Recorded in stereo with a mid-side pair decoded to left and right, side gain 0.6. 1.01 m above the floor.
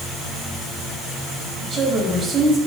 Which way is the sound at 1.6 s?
30° right.